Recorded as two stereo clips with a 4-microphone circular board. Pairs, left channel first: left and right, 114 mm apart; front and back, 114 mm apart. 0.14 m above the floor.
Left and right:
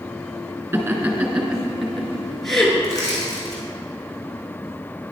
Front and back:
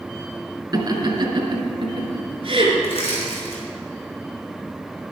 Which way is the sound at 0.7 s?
150° right.